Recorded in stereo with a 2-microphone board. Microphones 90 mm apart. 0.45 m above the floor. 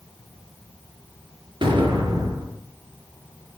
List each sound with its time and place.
1.6 s an explosion: 65° right (ahead or behind), 4.5 m